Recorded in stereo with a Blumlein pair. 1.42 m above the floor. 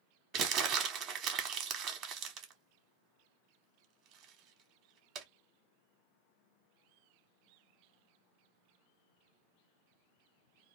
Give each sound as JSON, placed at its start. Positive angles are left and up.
{"t": 0.3, "sound": "crumpling", "azimuth_deg": -30, "distance_m": 0.8}